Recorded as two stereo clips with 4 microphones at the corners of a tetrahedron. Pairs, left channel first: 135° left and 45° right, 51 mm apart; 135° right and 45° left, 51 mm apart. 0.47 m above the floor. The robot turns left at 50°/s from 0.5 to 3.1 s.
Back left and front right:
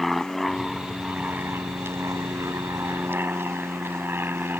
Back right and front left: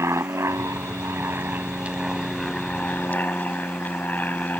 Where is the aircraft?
50° left; by 4.6 s 85° right.